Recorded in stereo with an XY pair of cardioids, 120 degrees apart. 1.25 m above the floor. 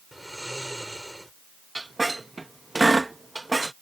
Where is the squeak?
15° right.